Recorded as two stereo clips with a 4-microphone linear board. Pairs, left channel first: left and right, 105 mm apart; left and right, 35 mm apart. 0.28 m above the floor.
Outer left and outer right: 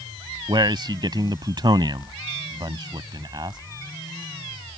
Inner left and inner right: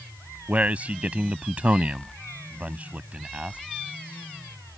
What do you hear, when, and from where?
0.5 s a man speaking: 45° right (ahead or behind)